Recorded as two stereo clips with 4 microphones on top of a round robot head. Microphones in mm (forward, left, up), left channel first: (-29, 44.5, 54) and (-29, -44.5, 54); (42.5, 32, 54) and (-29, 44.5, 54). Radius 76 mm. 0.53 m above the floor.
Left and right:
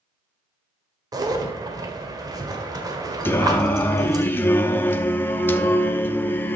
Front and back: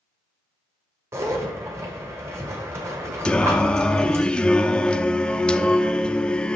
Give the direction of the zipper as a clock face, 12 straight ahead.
4 o'clock.